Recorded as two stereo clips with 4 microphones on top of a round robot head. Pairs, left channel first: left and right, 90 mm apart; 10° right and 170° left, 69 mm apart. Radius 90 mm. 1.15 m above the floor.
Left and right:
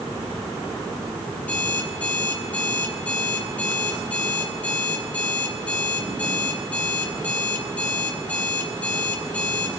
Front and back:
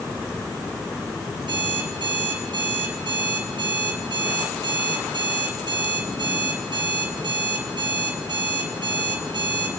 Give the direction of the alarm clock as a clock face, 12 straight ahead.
7 o'clock.